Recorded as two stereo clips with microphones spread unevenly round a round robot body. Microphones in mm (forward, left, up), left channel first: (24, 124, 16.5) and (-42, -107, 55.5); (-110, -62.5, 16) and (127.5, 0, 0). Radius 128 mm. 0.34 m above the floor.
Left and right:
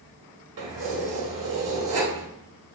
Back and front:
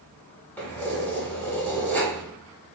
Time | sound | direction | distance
0.6 | keys jangling | 80° right | 1.1 m